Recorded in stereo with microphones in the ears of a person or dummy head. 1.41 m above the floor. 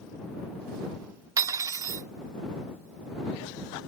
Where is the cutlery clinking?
20° right (ahead or behind).